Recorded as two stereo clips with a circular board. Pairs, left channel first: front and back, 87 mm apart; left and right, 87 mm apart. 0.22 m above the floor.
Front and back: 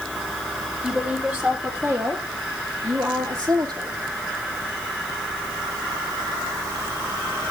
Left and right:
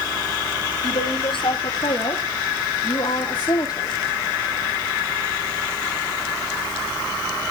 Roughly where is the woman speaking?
Left.